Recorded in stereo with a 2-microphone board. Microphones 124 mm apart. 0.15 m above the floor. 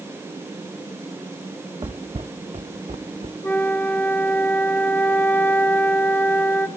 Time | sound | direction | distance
1.8 | footsteps | 40° right (ahead or behind) | 0.7 m
3.4 | a flute | 15° left (ahead or behind) | 1.6 m